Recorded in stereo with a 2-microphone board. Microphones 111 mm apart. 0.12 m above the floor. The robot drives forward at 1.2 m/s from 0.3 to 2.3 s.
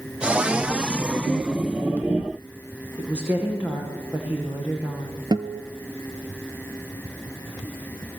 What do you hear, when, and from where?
3.0 s a woman speaking: 15° right (ahead or behind), 7 m
5.3 s a guitar: 40° right (ahead or behind), 1.1 m